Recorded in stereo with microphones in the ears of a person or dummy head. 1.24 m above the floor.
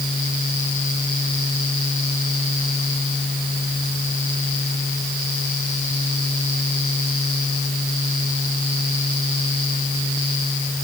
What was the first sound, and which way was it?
Only background noise.